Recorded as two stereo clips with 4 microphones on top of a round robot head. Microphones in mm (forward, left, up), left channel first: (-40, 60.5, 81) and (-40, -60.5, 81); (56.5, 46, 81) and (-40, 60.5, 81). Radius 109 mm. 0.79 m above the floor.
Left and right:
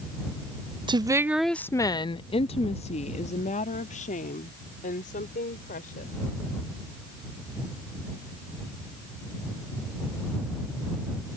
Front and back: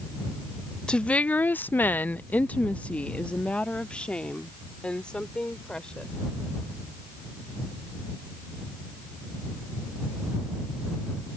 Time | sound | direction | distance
0.9 | a woman speaking | 85° right | ?